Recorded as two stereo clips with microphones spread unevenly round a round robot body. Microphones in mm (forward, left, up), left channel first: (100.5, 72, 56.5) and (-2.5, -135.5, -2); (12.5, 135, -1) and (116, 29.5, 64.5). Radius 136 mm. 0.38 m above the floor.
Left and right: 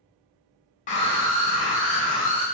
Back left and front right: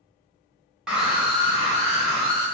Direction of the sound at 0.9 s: 105° left.